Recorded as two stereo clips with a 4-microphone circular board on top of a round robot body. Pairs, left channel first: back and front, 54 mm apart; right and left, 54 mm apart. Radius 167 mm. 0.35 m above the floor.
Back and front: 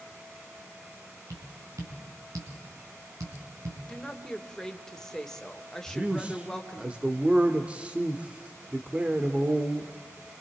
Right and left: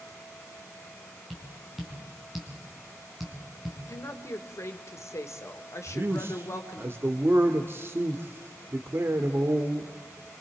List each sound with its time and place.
1.3 s tapping: 5° left, 4.5 m
3.9 s a woman speaking: 100° right, 2 m
5.9 s a man speaking: 60° left, 1.4 m